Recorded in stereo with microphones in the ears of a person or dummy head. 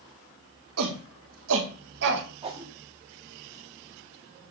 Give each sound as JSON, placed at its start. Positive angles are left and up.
{"t": 0.8, "sound": "a shout", "side_deg": -85, "distance_m": 3.0}
{"t": 2.4, "sound": "a whoosh", "side_deg": -30, "distance_m": 2.0}